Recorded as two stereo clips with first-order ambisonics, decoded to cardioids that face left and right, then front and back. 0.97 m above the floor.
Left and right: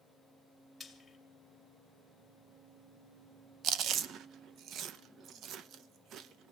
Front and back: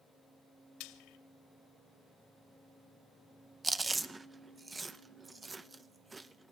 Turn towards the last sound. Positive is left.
turn(degrees=-110)